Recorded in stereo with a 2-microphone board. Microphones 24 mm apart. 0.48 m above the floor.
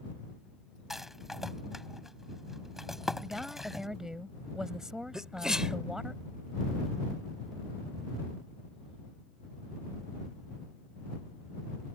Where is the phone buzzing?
No phone buzzing in this recording.